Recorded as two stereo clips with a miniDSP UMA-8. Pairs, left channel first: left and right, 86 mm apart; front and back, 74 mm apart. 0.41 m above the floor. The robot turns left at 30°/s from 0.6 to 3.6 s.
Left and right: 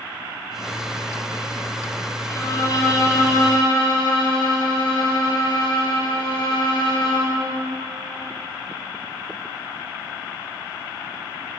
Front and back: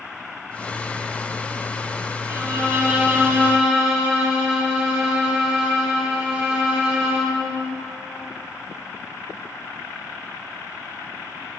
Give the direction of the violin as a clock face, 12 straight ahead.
7 o'clock.